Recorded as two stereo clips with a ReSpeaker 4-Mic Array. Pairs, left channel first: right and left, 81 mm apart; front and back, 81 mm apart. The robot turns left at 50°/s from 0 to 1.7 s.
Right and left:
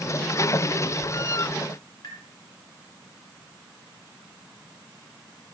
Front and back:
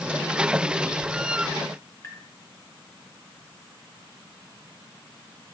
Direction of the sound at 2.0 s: 60° right.